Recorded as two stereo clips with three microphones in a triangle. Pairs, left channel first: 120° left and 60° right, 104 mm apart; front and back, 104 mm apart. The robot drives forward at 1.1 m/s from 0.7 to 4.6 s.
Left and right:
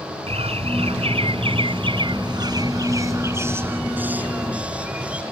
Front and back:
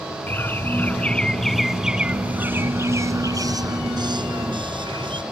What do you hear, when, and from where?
0.3 s a bird: 70° right; by 5.2 s 140° right